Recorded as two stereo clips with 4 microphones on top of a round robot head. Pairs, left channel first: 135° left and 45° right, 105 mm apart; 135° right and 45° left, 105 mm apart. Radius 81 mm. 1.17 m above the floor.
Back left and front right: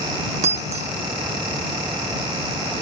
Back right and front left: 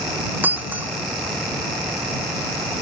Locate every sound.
0.4 s breaking glass: 30° right